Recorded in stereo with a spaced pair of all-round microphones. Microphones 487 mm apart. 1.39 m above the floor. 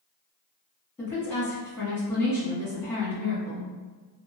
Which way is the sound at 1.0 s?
5° left (ahead or behind).